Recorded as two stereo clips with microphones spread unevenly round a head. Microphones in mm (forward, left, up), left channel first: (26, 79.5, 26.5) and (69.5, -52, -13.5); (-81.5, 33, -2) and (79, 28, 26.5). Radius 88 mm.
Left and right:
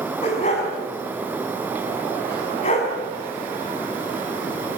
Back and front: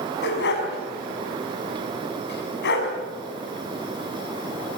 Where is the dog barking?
160° left, 5.5 m.